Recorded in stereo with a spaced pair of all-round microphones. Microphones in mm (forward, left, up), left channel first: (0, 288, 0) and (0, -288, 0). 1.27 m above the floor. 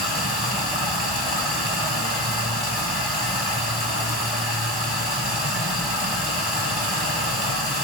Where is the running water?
55° left (ahead or behind), 3.5 m.